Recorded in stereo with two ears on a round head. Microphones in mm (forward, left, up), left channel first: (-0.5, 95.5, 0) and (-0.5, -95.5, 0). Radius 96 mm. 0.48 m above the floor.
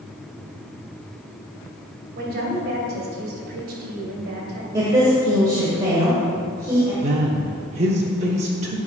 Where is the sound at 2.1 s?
45° right (ahead or behind), 2.5 m.